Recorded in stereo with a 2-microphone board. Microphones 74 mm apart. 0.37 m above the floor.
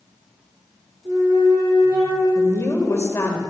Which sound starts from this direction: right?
A flute, at 1.1 s.